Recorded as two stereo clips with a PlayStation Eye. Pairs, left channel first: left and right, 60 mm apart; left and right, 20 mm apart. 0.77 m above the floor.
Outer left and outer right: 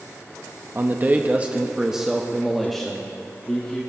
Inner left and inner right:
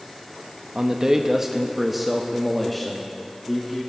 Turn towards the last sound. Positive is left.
turn(degrees=15)  # may be behind; listen again after turning